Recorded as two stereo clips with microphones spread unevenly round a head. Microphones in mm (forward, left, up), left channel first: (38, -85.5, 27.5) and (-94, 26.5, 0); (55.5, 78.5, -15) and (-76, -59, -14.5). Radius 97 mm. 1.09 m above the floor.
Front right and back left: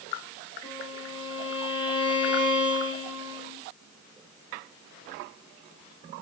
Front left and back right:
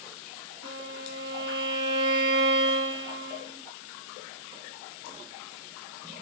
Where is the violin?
100° right, 6 m.